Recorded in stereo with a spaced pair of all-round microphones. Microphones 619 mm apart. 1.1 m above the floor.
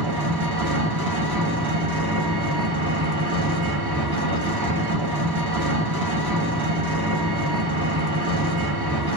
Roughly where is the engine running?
Right.